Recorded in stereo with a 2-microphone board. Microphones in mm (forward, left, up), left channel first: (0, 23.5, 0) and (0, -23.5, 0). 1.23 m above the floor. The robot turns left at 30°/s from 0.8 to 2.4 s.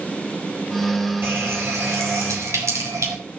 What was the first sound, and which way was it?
A running tap, 50° right.